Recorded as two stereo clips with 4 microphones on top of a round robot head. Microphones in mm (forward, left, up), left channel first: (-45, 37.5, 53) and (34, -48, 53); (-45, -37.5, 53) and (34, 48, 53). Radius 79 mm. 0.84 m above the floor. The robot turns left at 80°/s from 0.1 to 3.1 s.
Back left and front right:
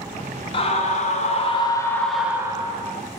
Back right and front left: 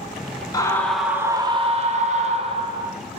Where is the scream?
170° left, 1.5 m; by 2.9 s 20° right, 1.5 m.